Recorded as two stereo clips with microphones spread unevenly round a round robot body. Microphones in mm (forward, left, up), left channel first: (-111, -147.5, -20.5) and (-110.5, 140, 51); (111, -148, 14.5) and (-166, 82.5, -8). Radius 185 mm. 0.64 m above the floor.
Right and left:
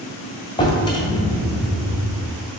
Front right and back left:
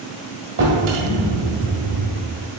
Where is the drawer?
165° right, 1.9 m.